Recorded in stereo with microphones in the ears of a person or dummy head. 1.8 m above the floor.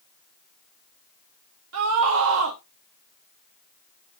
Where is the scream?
85° right, 1.3 m.